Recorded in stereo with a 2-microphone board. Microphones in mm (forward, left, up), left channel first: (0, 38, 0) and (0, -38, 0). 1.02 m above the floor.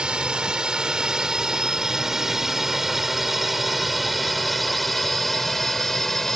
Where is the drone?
10° right (ahead or behind); by 6.4 s 5° left (ahead or behind).